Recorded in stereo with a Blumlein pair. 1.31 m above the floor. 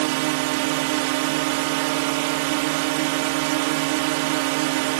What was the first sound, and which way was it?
A drone, 45° right.